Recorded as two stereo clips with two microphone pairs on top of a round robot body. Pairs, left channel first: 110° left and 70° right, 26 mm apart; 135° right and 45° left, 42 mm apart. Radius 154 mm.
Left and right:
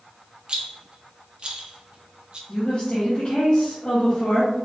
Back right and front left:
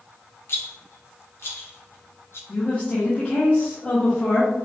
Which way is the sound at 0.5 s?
110° right.